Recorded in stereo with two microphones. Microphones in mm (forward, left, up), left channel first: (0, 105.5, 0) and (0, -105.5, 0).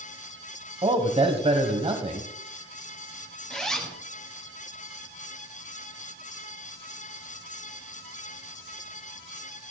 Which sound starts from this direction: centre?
A zipper, at 3.5 s.